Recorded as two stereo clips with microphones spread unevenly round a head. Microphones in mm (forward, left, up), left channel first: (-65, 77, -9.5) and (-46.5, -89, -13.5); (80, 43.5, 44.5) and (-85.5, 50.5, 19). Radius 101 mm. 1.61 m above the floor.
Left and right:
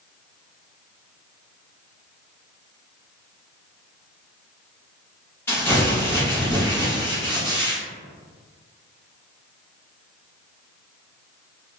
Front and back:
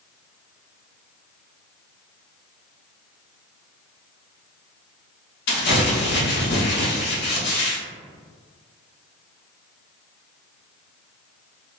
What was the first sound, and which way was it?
Crumpling, 15° left.